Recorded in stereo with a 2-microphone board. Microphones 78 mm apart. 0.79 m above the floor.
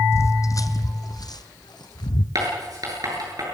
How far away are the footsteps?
About 1.3 m.